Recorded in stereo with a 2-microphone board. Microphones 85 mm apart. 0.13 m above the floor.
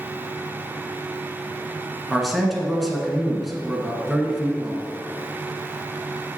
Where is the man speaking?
Centre (ahead or behind), 1.2 m.